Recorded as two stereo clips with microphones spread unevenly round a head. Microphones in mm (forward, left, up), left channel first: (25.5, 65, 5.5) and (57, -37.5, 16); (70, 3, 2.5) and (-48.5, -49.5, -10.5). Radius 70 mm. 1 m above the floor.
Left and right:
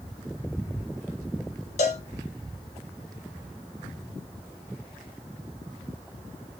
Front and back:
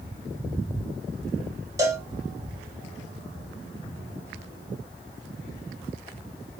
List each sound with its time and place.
1.8 s a cowbell: 135° left, 1.0 m